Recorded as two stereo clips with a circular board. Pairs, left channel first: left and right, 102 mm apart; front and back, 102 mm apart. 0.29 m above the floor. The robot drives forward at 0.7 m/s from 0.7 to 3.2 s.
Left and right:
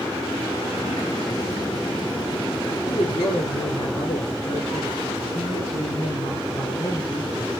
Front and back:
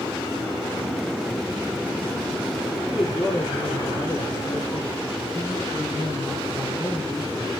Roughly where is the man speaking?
Ahead left.